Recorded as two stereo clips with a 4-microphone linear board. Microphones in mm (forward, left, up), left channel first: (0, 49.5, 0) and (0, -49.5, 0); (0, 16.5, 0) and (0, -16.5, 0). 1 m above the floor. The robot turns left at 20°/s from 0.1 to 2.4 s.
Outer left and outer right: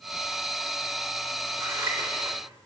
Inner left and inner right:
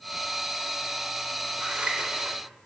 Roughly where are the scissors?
Right.